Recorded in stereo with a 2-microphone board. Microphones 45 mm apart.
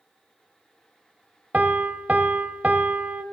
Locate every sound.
1.5 s a piano: 35° right (ahead or behind), 0.8 m